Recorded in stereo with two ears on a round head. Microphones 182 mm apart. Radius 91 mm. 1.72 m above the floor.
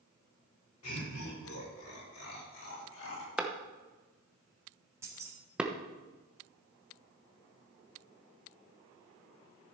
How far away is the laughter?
About 5.5 m.